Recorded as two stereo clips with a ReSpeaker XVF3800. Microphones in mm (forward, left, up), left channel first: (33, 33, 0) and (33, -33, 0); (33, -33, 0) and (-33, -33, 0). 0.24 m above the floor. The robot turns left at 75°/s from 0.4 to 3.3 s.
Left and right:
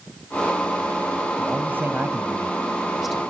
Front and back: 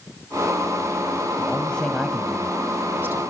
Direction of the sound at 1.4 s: 45° right.